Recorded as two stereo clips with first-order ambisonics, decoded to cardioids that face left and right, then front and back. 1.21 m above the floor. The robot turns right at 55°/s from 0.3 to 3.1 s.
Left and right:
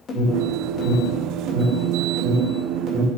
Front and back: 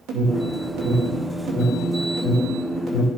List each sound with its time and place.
0.1 s an alarm: 155° left, 2.5 m; by 3.1 s 55° right, 2.5 m